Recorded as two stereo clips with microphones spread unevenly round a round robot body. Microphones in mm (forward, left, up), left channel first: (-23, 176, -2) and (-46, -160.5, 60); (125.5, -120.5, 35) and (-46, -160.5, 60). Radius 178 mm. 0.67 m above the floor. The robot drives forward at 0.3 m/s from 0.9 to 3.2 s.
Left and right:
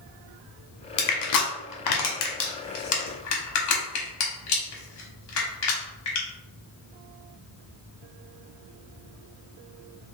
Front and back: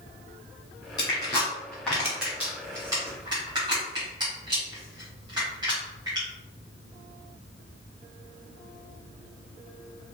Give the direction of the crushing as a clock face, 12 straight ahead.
9 o'clock.